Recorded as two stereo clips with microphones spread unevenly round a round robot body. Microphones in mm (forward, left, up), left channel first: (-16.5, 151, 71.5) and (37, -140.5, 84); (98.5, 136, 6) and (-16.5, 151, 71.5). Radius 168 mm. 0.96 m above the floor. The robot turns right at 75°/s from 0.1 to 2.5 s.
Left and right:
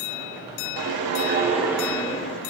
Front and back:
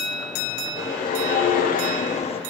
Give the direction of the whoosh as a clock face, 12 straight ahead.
2 o'clock.